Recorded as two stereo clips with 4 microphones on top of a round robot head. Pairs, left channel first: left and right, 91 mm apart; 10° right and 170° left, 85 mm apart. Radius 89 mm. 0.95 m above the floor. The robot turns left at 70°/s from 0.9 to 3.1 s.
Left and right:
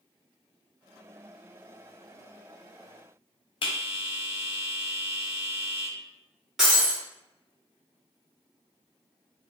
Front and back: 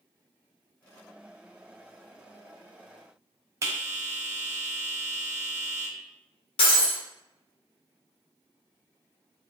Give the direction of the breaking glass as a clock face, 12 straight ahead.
12 o'clock.